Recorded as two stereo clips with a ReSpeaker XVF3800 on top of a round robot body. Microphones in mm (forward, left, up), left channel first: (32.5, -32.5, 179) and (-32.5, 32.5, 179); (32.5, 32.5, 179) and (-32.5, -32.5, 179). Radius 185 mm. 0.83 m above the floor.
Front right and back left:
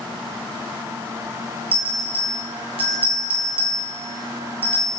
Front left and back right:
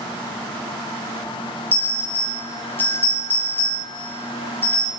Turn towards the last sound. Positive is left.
turn(degrees=115)